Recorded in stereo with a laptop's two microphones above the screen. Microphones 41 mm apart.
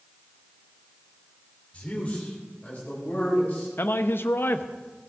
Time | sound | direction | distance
1.7 | a man speaking | 30° left (ahead or behind) | 2.5 m
3.8 | a man speaking | 60° left (ahead or behind) | 0.6 m